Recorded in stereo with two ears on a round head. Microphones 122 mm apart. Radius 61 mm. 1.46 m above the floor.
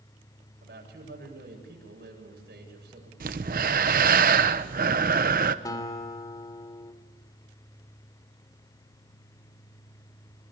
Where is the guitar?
30° left (ahead or behind), 2.5 m.